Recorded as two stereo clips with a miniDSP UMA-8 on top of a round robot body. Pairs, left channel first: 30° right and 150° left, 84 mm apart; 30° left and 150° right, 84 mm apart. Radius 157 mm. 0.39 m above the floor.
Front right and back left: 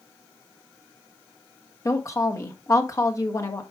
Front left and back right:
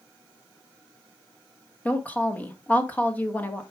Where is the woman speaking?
25° right, 1.4 m.